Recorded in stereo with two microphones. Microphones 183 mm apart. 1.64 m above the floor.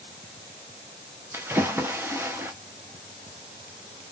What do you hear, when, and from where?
1.3 s a splash: 10° right (ahead or behind), 0.6 m